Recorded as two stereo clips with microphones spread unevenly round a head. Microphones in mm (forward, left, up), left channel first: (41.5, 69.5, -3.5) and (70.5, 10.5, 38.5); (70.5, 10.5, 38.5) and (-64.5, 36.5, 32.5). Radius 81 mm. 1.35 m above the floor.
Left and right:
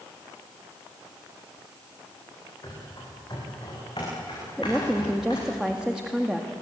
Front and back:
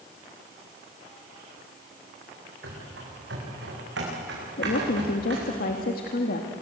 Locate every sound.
2.6 s running footsteps: 170° right, 7.5 m; by 5.5 s 175° left, 8 m
4.6 s a woman speaking: 10° left, 1.9 m